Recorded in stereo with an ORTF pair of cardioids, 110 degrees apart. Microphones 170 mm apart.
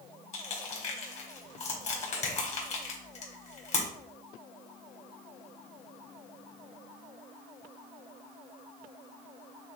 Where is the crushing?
45° left, 1.8 m.